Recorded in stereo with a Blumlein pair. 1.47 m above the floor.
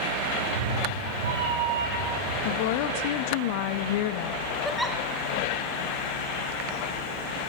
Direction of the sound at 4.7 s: Straight ahead.